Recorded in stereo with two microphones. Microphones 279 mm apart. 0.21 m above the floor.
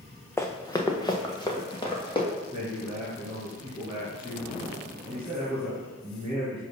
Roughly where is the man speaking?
Centre.